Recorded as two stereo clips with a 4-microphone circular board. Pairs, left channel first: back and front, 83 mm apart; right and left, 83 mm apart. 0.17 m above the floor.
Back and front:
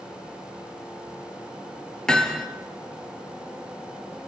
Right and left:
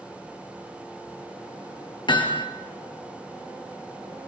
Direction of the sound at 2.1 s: 100° right.